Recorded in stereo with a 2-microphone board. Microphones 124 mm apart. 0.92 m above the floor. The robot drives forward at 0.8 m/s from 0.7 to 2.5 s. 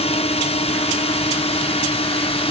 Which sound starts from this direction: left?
A drone, at 0.0 s.